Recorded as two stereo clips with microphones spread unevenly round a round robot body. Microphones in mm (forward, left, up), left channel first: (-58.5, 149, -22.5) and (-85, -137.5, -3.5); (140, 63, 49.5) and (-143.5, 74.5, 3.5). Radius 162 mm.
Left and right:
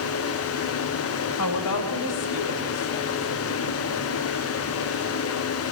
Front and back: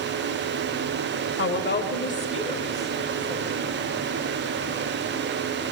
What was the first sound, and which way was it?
A woman speaking, 45° left.